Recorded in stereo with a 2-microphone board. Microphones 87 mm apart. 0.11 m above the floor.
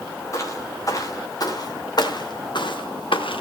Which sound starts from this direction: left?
Footsteps, at 0.3 s.